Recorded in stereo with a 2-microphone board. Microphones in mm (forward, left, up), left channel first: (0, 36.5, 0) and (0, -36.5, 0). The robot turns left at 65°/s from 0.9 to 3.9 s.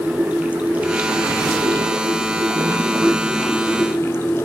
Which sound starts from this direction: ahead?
Running water, at 0.0 s.